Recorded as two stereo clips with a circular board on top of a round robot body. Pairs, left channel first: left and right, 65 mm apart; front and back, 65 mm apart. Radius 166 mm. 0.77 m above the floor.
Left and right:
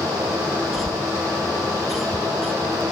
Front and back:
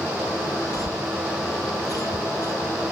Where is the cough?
5° right.